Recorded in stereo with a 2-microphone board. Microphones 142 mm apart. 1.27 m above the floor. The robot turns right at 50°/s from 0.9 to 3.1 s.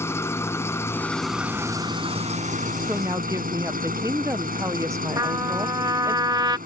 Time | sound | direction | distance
0.0 | an engine running | 160° left | ?
2.9 | a woman speaking | 10° right (ahead or behind) | ?
5.2 | a trumpet | 30° right (ahead or behind) | ?